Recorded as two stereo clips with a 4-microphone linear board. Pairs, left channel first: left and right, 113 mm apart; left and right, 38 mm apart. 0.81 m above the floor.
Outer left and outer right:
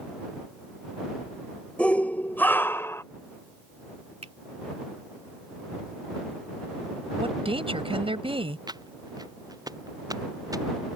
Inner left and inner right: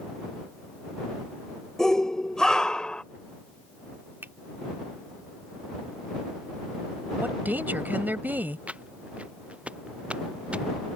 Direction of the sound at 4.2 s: 70° right (ahead or behind).